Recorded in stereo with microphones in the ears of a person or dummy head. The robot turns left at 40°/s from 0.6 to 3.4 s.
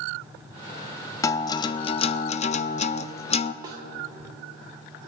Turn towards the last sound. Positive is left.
turn(degrees=-20)  # may be behind; listen again after turning